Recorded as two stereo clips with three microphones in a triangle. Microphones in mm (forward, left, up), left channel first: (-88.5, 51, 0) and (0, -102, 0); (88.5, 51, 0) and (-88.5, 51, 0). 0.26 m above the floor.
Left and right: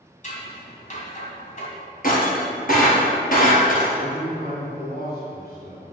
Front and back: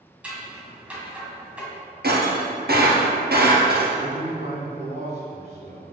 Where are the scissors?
100° left, 1.9 m.